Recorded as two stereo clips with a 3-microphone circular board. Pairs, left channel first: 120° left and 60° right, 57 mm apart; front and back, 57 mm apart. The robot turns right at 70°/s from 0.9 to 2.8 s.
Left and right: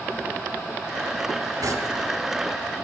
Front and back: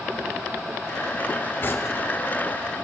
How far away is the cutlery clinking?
About 2.5 m.